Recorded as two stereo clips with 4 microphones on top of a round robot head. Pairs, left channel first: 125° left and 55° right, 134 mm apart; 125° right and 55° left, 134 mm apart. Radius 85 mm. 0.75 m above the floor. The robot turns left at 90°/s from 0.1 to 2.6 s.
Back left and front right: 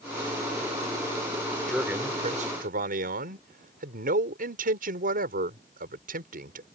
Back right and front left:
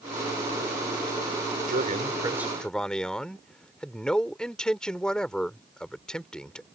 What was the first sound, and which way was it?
A man speaking, 40° left.